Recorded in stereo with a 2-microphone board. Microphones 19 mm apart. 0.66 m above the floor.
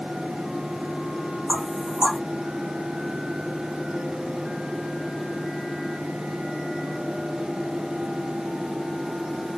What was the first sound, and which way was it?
Knocking, 50° right (ahead or behind).